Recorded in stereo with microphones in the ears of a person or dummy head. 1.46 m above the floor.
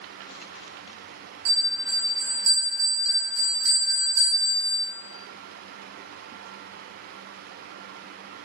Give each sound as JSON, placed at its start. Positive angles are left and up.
{"t": 1.4, "sound": "a bell", "side_deg": -70, "distance_m": 1.3}